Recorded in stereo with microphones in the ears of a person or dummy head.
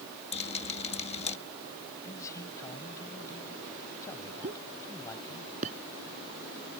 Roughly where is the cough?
I don't hear a cough.